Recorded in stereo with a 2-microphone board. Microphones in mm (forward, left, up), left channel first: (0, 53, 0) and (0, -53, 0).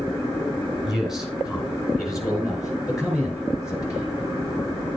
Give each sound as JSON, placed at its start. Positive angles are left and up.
{"t": 0.8, "sound": "a man speaking", "side_deg": 0, "distance_m": 3.0}